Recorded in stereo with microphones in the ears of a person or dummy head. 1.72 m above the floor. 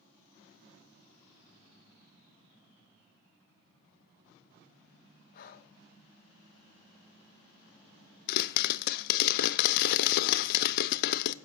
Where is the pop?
60° left (ahead or behind), 0.5 m.